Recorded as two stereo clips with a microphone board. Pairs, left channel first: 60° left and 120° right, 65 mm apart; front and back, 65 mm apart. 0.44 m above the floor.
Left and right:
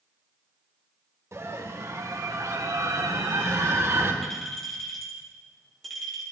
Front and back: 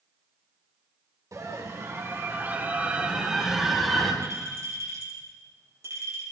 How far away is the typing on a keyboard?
No typing on a keyboard in this recording.